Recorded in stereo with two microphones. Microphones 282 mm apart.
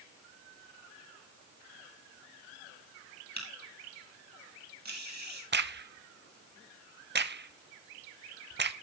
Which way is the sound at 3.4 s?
70° right (ahead or behind).